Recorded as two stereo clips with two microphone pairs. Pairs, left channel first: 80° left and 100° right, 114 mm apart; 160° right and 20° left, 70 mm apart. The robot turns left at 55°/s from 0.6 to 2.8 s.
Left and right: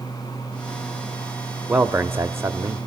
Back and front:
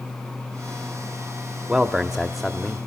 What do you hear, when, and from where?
1.7 s a man speaking: 40° right, 0.9 m; by 2.9 s 100° right, 0.9 m